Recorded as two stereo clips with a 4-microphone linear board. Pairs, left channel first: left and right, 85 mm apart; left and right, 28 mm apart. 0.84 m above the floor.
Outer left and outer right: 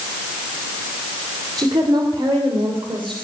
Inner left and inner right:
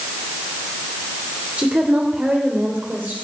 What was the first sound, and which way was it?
A woman speaking, 55° right (ahead or behind).